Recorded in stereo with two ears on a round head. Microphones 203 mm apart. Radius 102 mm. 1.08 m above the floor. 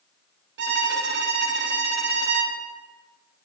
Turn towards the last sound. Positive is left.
turn(degrees=-50)  # may be behind; listen again after turning